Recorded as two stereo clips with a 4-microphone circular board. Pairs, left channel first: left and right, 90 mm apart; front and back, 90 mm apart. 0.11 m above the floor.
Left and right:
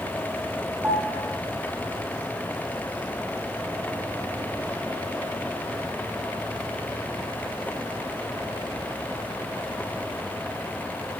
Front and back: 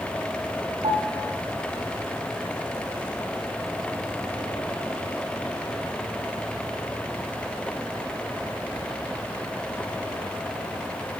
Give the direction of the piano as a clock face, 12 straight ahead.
5 o'clock.